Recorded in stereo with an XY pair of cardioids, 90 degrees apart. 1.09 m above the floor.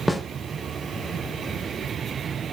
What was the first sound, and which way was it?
A snare drum, 10° left.